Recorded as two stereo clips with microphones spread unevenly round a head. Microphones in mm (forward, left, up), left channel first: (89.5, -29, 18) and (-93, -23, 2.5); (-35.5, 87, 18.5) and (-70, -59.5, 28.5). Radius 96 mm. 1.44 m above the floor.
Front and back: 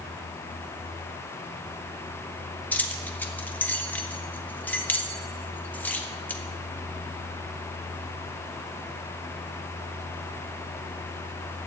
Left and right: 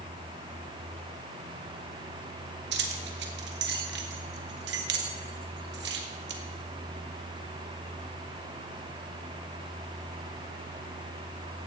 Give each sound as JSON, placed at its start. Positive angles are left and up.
{"t": 2.7, "sound": "keys jangling", "azimuth_deg": -80, "distance_m": 1.2}